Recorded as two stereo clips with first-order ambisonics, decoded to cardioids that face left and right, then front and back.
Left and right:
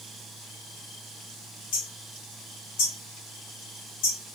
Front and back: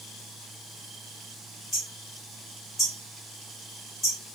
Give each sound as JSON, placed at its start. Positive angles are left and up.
{"t": 1.7, "sound": "hammering", "azimuth_deg": 80, "distance_m": 2.0}